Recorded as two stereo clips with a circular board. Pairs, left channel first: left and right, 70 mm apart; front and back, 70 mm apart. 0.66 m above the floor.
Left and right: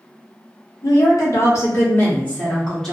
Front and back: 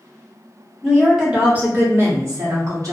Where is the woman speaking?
95° left, 1.2 m; by 2.9 s 175° left, 1.1 m.